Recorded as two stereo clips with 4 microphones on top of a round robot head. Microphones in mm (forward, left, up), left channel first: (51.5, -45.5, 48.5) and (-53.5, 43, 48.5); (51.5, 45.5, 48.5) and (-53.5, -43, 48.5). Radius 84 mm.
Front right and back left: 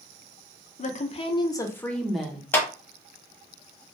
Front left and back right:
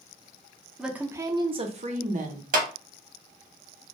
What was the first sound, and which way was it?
A woman speaking, 55° right.